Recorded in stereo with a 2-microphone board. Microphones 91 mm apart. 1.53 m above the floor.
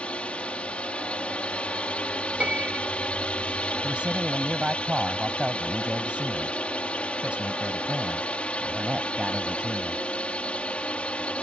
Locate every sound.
0.0 s a drone: 15° left (ahead or behind)
2.4 s a piano: 15° right (ahead or behind)
3.8 s a man speaking: 10° right (ahead or behind)